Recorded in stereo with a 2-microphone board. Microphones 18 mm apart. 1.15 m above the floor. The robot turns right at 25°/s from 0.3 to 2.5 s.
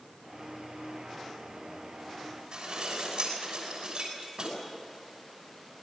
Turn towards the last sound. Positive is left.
turn(degrees=-45)  # may be behind; listen again after turning